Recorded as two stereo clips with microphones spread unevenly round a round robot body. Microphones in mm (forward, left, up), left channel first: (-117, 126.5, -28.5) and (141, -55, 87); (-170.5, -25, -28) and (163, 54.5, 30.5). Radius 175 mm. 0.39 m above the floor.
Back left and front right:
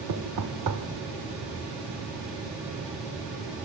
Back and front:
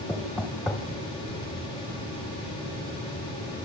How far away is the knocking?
About 1.5 m.